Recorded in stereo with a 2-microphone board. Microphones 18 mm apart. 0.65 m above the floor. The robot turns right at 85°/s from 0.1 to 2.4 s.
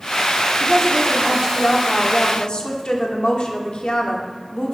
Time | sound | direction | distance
0.6 | a woman speaking | 65° right | 1.5 m